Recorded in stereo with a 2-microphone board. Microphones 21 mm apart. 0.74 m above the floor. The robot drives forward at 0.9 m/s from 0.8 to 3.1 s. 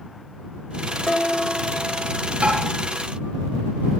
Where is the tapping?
85° right, 8 m.